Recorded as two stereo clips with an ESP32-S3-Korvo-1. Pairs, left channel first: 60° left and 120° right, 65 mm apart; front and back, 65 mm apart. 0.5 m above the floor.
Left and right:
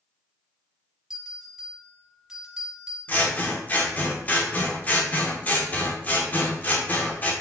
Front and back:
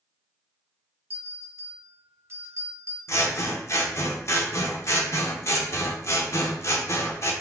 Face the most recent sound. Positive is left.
turn(degrees=5)